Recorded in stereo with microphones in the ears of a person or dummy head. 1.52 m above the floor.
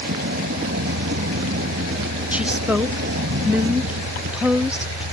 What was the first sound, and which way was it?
A vehicle, 70° right (ahead or behind).